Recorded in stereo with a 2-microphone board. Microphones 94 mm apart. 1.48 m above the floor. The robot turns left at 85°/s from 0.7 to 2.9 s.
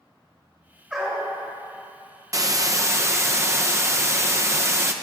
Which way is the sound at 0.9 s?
165° right.